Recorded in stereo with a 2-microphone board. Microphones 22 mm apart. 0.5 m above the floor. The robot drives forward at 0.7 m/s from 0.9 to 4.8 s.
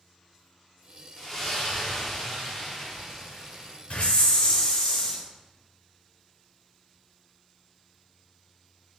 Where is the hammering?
I don't hear hammering.